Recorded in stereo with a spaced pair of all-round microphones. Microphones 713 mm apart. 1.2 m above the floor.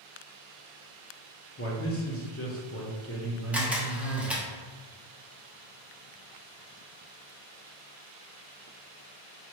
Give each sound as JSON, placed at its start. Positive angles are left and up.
{"t": 1.6, "sound": "a man speaking", "side_deg": 20, "distance_m": 0.8}
{"t": 3.5, "sound": "a camera shutter", "side_deg": 0, "distance_m": 0.8}